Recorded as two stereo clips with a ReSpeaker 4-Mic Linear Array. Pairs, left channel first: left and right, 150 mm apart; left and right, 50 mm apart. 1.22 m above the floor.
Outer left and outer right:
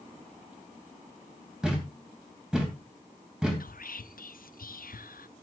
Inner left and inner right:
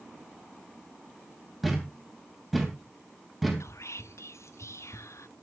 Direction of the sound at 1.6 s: 5° right (ahead or behind).